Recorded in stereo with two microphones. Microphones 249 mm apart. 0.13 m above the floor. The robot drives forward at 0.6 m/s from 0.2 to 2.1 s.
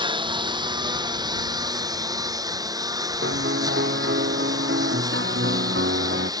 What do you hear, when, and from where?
0.0 s a lawn mower: 15° right (ahead or behind)
3.2 s a piano: 45° right (ahead or behind)